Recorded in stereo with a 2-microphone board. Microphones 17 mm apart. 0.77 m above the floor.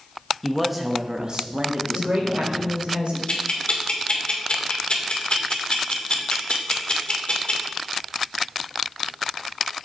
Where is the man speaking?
10° left (ahead or behind), 1.1 m; by 2.8 s 70° right (ahead or behind), 2.5 m.